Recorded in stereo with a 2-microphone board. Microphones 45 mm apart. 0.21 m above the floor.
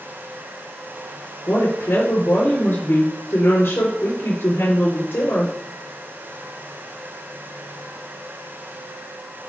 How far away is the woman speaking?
About 4 m.